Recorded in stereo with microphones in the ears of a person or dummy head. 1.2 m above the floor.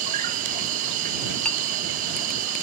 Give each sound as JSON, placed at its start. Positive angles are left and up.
{"t": 0.0, "sound": "an insect", "side_deg": -50}
{"t": 1.4, "sound": "a clink", "side_deg": 10}